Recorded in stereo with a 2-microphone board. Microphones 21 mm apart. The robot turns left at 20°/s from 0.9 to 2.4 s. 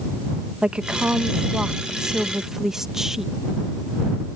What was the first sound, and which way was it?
A woman speaking, 130° right.